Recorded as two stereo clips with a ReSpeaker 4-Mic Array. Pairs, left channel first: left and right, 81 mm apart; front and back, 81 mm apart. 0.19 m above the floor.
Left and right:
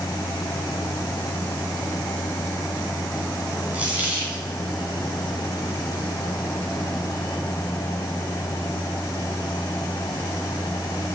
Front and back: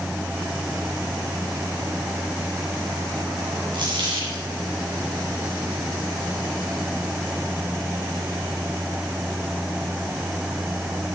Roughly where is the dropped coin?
Behind.